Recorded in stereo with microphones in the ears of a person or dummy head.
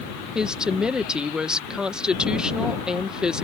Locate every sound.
0.3 s a woman speaking: 10° right (ahead or behind)